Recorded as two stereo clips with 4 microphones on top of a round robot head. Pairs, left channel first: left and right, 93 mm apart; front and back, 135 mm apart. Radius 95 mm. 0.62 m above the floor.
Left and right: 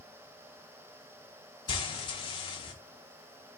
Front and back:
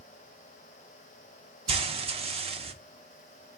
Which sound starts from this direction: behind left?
Frying, at 1.7 s.